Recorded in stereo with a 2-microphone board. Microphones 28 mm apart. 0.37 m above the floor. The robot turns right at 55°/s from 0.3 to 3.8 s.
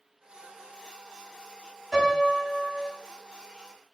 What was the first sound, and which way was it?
A piano, 5° right.